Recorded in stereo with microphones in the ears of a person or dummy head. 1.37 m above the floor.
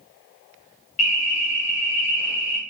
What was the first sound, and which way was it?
An alarm, 40° left (ahead or behind).